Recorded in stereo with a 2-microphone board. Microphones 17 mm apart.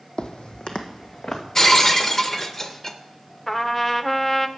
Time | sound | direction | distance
0.2 | footsteps | 55° left (ahead or behind) | 0.7 m
1.6 | breaking glass | 20° left (ahead or behind) | 0.6 m
3.5 | a trumpet | 10° left (ahead or behind) | 0.5 m